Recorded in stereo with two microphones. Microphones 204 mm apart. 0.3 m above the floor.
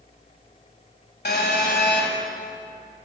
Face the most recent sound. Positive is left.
turn(degrees=55)  # may be behind; listen again after turning